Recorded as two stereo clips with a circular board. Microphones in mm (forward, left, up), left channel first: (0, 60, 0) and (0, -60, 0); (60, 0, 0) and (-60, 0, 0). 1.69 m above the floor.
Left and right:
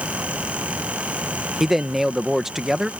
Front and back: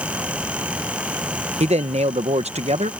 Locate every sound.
1.6 s a man speaking: 175° right